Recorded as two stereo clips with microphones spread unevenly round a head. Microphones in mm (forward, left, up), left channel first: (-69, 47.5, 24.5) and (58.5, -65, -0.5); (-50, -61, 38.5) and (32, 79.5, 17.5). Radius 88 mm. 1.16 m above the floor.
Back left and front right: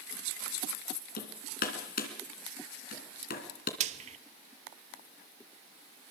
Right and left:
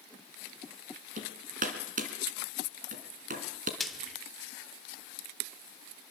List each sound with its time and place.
1.2 s hammering: 105° left, 3 m
3.8 s frying: 45° right, 0.8 m